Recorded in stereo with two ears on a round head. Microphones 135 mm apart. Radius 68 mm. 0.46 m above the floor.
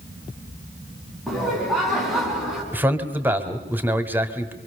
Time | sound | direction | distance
1.3 | laughter | centre (ahead or behind) | 6 m
2.7 | a man speaking | 10° right (ahead or behind) | 1.7 m